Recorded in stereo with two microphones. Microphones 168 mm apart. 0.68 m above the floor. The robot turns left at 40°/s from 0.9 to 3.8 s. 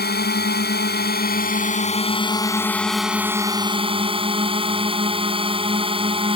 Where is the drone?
85° left; by 6.4 s 35° right.